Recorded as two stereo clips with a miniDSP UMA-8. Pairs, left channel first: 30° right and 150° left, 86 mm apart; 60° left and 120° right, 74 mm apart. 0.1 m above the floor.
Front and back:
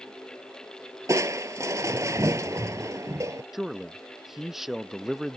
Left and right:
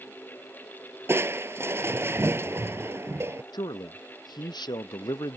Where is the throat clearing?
I don't hear throat clearing.